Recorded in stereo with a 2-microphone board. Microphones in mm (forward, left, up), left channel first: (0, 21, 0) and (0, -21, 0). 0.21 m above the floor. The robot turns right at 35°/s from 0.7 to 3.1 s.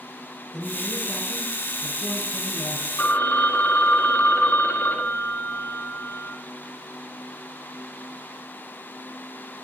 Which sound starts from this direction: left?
A phone ringing, at 3.0 s.